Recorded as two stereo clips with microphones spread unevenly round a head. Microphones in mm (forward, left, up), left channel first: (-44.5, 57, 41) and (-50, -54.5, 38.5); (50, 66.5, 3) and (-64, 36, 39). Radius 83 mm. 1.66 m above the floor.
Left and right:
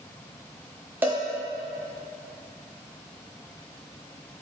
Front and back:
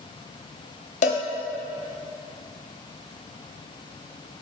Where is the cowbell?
15° right, 0.9 m.